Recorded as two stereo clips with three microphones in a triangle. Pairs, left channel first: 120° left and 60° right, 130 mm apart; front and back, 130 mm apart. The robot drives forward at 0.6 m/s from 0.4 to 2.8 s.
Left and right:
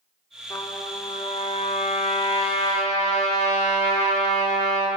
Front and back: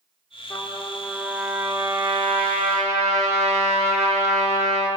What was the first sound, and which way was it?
A trumpet, 60° left.